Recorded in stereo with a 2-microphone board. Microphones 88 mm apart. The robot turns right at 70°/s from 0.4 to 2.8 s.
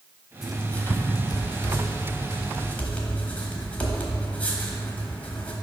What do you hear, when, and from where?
0.4 s writing: 5° right (ahead or behind), 1.1 m; by 5.5 s 15° left (ahead or behind), 1.1 m